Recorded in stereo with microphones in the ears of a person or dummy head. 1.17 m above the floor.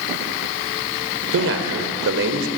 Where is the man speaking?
75° right (ahead or behind), 4 m.